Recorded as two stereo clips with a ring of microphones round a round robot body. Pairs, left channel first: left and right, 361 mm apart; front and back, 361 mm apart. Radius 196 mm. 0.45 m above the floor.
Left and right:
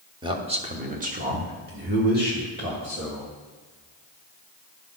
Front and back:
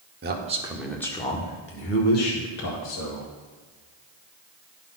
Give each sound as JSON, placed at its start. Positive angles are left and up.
{"t": 0.2, "sound": "a man speaking", "azimuth_deg": -155, "distance_m": 1.1}